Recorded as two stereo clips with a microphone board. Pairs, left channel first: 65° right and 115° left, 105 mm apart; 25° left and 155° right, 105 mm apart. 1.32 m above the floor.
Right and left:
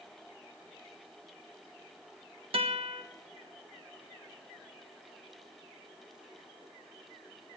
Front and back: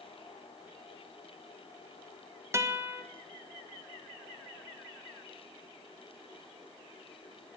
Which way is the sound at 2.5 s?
140° left.